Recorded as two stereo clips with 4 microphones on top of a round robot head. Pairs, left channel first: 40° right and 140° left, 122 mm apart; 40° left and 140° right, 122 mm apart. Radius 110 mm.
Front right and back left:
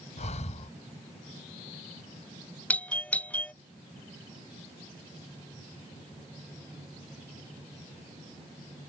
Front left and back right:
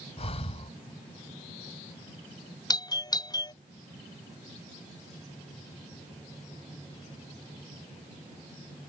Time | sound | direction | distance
0.2 | breathing | 5° right | ?
2.7 | a doorbell | 30° left | ?